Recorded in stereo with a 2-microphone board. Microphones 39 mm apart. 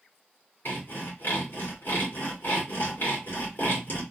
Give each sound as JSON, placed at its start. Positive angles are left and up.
{"t": 0.7, "sound": "sawing", "side_deg": 65, "distance_m": 2.0}